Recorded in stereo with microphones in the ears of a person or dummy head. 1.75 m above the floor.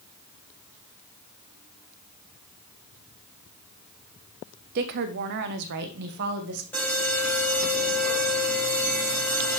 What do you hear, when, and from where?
4.8 s a woman speaking: 40° right (ahead or behind), 0.7 m; by 6.6 s 55° right (ahead or behind), 1.8 m
6.7 s an alarm: 10° left (ahead or behind), 5 m